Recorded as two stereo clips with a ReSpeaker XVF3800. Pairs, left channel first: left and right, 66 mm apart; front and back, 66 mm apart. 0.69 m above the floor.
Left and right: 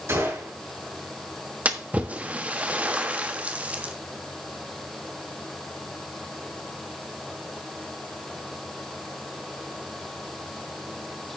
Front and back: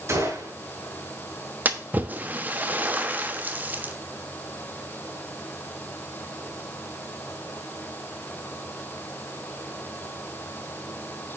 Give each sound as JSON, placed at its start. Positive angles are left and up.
{"t": 0.1, "sound": "a gunshot", "azimuth_deg": -135, "distance_m": 6.0}
{"t": 1.6, "sound": "a splash", "azimuth_deg": -140, "distance_m": 1.1}